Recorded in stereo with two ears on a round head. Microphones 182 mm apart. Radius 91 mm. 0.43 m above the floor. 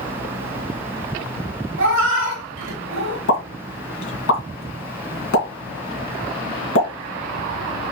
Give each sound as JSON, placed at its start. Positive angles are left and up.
{"t": 1.8, "sound": "a cat meowing", "side_deg": -65, "distance_m": 1.3}
{"t": 3.3, "sound": "a pop", "side_deg": 70, "distance_m": 2.5}